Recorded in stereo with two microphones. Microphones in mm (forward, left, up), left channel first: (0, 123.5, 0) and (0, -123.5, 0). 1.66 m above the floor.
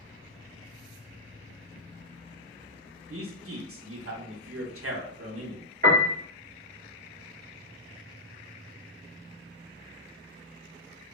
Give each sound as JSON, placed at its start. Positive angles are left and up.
{"t": 3.1, "sound": "a man speaking", "side_deg": -65, "distance_m": 0.7}
{"t": 5.8, "sound": "a piano", "side_deg": -40, "distance_m": 1.4}